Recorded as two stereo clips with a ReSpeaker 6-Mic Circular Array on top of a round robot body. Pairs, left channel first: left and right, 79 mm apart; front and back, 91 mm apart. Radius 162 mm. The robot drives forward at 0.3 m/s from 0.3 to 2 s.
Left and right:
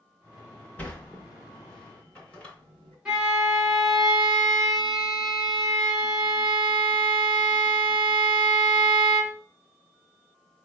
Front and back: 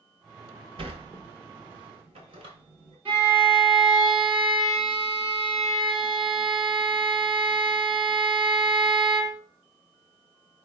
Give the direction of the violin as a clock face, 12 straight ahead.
6 o'clock.